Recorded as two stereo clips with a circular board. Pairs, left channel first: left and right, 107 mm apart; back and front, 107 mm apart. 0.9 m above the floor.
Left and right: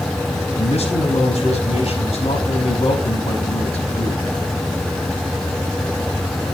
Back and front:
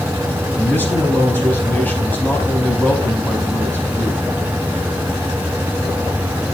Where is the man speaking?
105° left, 5 m.